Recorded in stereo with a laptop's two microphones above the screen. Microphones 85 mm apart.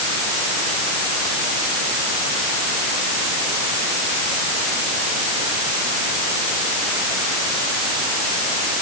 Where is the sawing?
I don't hear sawing.